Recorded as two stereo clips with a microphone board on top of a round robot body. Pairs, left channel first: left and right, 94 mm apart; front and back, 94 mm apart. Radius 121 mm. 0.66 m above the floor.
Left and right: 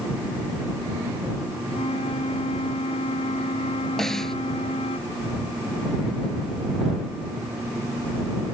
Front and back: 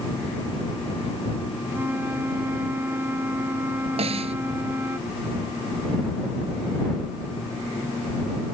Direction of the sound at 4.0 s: 175° left.